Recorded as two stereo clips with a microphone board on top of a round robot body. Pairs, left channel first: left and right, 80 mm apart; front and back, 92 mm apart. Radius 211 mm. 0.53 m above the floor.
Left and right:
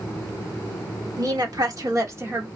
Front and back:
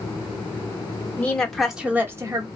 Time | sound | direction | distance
1.2 | a woman speaking | 70° right | 1.9 m